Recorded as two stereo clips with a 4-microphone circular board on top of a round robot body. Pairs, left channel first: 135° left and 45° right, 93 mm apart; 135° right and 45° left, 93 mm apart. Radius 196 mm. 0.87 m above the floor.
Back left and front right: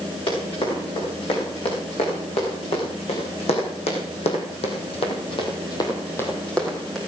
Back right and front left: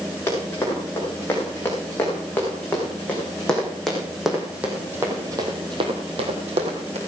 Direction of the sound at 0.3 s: 160° left.